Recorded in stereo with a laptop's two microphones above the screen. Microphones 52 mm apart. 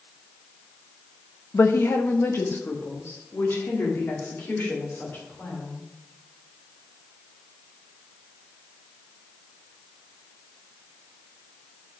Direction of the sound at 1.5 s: 60° left (ahead or behind).